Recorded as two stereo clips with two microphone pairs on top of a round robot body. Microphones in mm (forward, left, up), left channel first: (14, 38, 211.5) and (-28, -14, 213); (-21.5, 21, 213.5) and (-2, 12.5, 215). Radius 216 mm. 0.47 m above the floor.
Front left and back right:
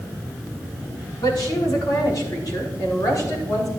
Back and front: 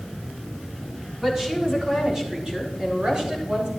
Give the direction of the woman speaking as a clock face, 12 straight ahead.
10 o'clock.